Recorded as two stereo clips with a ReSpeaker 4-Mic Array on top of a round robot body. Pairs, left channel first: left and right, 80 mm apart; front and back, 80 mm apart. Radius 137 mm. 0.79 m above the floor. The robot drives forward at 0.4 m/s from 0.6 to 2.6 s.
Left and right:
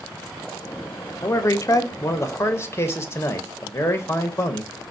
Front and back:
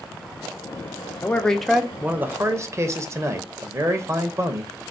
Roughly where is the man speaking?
Ahead left.